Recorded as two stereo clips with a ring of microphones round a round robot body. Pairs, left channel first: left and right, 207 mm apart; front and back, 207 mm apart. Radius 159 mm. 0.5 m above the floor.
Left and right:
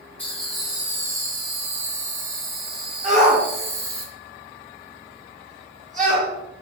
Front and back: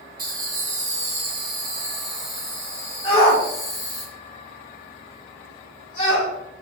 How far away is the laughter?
About 1.6 m.